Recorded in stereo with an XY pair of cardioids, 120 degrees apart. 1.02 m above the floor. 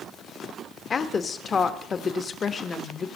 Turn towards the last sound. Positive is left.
turn(degrees=35)